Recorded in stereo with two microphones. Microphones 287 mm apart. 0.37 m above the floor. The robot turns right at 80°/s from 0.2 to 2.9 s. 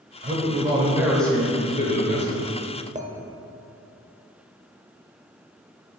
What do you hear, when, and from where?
0.2 s a man speaking: 75° right, 1.0 m; by 2.3 s 90° left, 1.0 m
3.0 s a clink: 25° right (ahead or behind), 0.5 m